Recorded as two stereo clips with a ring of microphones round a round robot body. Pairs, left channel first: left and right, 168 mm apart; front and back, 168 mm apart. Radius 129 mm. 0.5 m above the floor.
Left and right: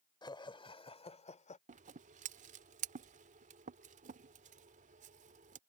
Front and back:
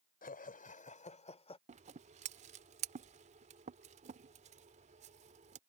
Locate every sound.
0.2 s laughter: 30° left; by 1.6 s 50° left
1.7 s scissors: 130° right